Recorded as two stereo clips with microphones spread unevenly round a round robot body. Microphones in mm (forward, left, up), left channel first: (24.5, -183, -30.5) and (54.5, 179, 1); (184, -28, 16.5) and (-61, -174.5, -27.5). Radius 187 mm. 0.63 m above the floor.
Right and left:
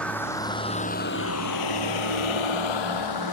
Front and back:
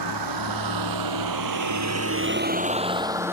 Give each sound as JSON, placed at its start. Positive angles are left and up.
{"t": 0.0, "sound": "a vehicle", "azimuth_deg": 180}